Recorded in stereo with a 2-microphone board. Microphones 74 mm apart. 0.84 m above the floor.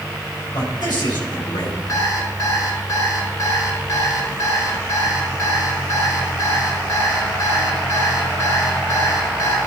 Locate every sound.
0.5 s a man speaking: 70° left (ahead or behind), 4.5 m
1.9 s an alarm clock: 45° left (ahead or behind), 4 m